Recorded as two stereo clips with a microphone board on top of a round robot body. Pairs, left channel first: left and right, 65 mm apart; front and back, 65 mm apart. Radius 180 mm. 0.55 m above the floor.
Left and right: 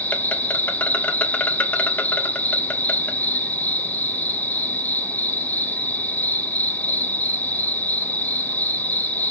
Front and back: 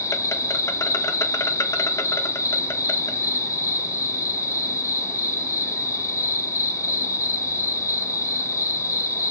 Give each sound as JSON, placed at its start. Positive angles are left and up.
{"t": 0.0, "sound": "an insect", "azimuth_deg": 30, "distance_m": 0.8}